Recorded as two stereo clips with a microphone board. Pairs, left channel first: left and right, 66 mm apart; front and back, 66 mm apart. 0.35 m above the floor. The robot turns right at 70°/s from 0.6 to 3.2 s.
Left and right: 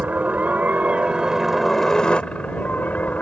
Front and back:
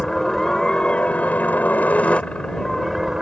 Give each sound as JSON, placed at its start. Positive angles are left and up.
{"t": 0.0, "sound": "a helicopter", "azimuth_deg": -70}